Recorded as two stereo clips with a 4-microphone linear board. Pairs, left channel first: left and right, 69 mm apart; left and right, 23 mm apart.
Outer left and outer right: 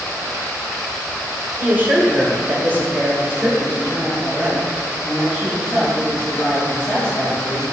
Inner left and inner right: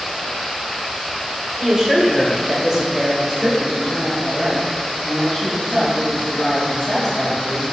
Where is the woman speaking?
25° right (ahead or behind), 1.4 m; by 7.6 s 5° left (ahead or behind), 3.5 m.